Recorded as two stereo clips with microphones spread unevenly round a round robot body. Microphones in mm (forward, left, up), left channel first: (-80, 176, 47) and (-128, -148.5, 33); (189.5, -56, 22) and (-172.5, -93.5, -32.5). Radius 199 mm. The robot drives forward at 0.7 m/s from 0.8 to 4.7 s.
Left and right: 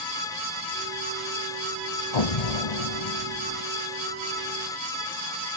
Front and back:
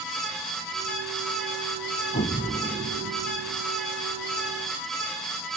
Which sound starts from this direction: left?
An explosion, at 2.1 s.